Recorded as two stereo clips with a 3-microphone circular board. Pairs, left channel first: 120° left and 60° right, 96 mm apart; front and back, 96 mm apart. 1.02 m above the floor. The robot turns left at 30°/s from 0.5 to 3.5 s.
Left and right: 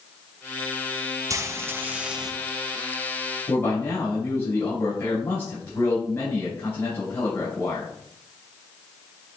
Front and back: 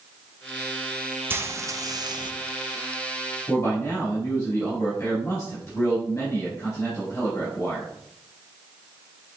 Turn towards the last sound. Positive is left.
turn(degrees=65)